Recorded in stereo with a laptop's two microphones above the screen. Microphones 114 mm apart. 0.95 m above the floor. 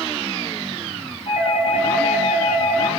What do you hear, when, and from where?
1.3 s a doorbell: 75° left (ahead or behind), 3.5 m